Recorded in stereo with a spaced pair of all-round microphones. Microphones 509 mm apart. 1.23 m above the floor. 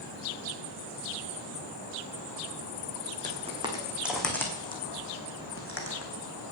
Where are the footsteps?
15° right (ahead or behind), 3.5 m; by 6.1 s 30° left (ahead or behind), 3.5 m.